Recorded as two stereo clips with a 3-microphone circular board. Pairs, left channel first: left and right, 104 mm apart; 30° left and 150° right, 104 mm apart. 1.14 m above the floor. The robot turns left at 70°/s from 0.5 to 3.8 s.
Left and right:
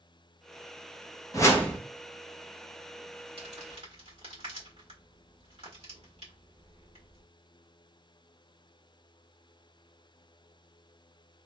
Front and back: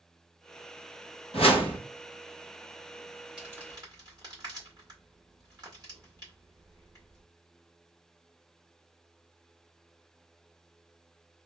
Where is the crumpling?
70° right, 1.9 m; by 7.2 s 100° right, 1.9 m.